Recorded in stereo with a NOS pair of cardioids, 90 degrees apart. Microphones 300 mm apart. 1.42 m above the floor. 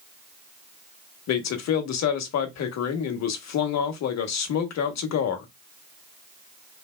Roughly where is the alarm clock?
I don't hear an alarm clock.